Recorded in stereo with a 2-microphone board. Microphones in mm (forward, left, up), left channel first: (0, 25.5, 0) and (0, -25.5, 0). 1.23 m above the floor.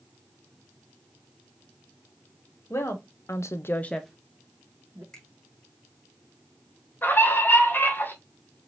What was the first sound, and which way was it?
A woman speaking, 60° left (ahead or behind).